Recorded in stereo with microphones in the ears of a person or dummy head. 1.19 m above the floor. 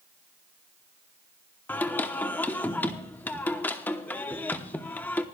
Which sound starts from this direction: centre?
Singing, at 1.7 s.